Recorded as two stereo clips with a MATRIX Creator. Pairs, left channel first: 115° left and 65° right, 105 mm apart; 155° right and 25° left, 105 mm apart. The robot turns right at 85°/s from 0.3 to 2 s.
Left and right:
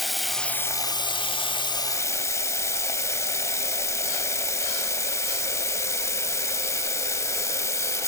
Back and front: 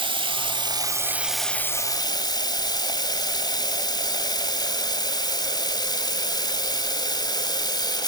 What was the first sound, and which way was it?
Running water, 20° left.